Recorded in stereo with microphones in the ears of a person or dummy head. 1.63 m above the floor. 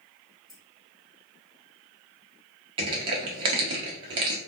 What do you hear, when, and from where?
0.5 s keys jangling: centre (ahead or behind), 0.9 m
2.8 s crushing: 30° right (ahead or behind), 0.8 m